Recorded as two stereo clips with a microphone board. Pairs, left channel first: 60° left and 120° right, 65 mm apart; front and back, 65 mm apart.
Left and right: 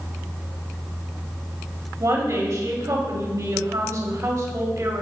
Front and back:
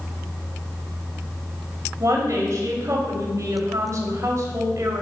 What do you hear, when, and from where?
2.0 s a woman speaking: 145° right, 1.7 m